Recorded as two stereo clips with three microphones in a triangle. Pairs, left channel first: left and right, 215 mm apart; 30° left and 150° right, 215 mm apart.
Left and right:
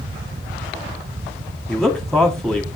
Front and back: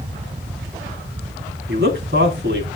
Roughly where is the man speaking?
Behind.